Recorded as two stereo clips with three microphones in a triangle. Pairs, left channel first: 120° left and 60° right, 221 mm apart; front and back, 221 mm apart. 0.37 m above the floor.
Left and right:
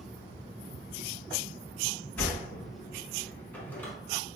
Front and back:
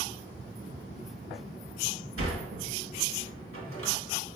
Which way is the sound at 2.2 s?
160° right.